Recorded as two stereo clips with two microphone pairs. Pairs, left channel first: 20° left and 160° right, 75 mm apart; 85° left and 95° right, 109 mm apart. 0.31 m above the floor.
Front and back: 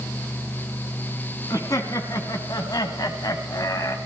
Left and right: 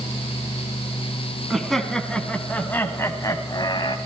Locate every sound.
1.5 s laughter: 10° right, 2.5 m; by 4.0 s 55° left, 1.8 m